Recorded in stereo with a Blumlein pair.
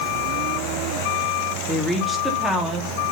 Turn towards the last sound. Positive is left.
turn(degrees=0)